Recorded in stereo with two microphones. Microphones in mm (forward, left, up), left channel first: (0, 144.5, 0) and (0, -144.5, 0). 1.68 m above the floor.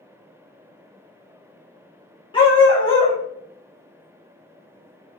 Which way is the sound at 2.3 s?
15° left (ahead or behind).